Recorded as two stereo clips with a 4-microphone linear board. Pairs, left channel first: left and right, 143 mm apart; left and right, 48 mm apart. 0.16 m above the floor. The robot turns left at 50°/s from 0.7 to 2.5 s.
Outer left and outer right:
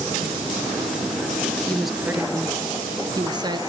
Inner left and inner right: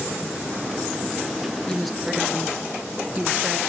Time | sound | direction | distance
1.7 | a woman speaking | 10° left | 2.5 m